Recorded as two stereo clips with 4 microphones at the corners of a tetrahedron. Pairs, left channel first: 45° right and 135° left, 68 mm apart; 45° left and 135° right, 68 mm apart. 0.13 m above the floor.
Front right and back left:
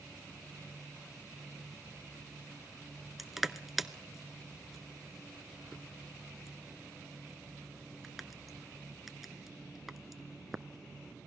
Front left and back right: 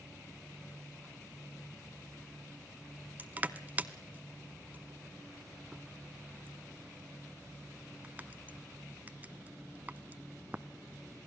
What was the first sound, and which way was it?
Crushing, 140° right.